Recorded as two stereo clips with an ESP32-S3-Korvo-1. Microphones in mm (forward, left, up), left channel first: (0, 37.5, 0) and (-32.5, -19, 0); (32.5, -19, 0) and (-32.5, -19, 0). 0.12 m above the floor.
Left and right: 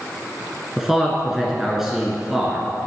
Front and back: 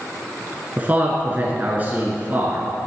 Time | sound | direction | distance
0.8 | a man speaking | 160° left | 1.3 m